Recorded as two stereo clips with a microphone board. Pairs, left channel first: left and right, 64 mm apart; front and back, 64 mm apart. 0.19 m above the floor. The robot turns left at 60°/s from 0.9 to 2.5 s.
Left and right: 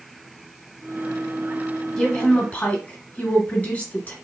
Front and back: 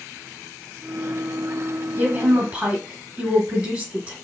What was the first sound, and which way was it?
A woman speaking, 165° left.